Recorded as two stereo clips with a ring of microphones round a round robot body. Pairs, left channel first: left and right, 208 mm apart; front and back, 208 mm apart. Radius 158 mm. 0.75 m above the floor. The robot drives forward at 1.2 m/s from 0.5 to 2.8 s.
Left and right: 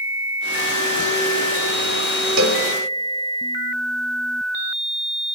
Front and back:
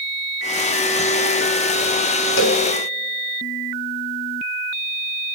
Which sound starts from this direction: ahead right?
A cowbell, at 2.4 s.